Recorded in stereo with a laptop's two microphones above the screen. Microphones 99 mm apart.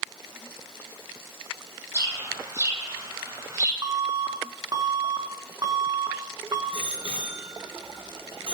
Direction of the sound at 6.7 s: 65° right (ahead or behind).